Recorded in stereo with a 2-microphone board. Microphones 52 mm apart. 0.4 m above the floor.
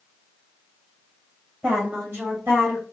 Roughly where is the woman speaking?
Right.